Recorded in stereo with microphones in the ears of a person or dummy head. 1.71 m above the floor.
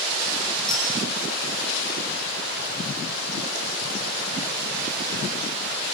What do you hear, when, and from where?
0.7 s a clink: 5° left (ahead or behind), 8.5 m